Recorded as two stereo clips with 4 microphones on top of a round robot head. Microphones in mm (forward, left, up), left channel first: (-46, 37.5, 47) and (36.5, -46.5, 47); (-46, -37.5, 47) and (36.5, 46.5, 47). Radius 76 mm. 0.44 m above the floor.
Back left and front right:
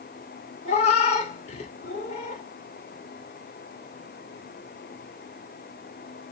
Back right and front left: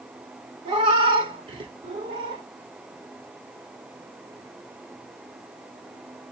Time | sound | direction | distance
0.7 | a cat meowing | 95° left | 1.3 m